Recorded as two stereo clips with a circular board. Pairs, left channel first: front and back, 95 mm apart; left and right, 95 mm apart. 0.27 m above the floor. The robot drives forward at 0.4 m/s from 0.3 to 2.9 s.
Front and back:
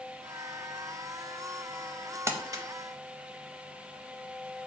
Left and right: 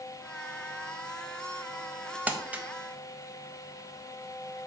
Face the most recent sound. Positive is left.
turn(degrees=-165)